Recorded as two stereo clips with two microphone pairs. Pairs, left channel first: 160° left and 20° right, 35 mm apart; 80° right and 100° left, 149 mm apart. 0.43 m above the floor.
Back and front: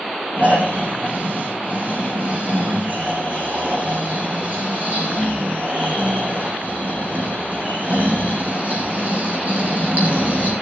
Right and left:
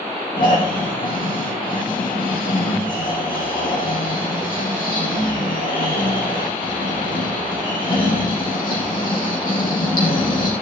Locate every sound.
0.4 s snoring: 55° right, 4.5 m